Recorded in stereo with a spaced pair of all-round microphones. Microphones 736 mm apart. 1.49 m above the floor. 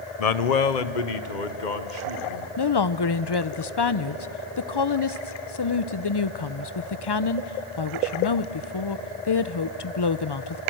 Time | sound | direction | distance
0.2 | a man speaking | 55° left (ahead or behind) | 0.8 m
2.6 | a woman speaking | 35° left (ahead or behind) | 0.6 m